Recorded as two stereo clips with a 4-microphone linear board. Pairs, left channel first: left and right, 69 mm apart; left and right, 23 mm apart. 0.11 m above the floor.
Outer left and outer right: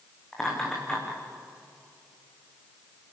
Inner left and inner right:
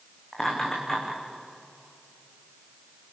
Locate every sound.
0.3 s laughter: 10° left (ahead or behind), 8 m